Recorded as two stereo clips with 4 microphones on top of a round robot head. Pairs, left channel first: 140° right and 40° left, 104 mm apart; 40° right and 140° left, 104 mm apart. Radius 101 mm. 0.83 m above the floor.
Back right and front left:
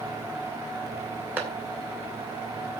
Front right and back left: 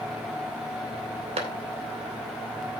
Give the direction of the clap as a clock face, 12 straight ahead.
8 o'clock.